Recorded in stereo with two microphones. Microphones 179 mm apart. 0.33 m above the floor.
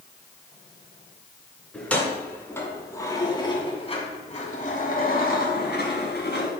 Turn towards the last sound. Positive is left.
turn(degrees=70)  # may be behind; listen again after turning